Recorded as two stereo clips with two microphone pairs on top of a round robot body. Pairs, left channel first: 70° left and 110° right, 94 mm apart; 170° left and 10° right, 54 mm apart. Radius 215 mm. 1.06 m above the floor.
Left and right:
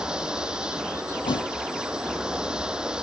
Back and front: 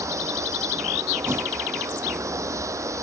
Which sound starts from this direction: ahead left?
A thud, at 1.2 s.